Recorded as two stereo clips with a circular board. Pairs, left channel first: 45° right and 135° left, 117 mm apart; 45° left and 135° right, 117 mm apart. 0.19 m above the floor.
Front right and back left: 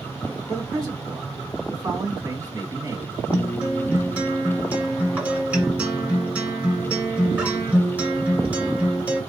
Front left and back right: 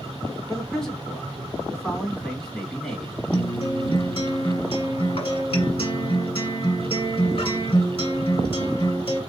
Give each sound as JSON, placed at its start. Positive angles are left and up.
{"t": 0.5, "sound": "a man speaking", "azimuth_deg": 125, "distance_m": 1.6}
{"t": 3.3, "sound": "a guitar", "azimuth_deg": 60, "distance_m": 1.8}